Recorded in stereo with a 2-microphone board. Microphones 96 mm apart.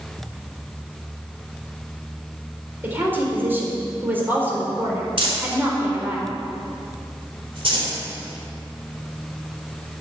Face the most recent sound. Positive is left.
turn(degrees=-70)  # may be behind; listen again after turning